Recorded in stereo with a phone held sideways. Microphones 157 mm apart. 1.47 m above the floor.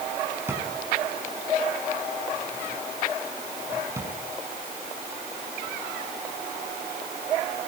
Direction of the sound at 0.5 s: 15° right (ahead or behind).